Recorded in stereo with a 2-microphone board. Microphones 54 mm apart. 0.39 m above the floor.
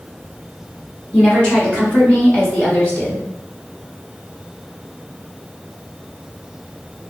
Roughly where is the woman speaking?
Centre.